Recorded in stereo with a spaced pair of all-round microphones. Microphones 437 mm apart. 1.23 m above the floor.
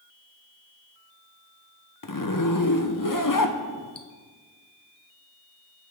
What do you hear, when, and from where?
2.0 s a zipper: 45° left (ahead or behind), 1.0 m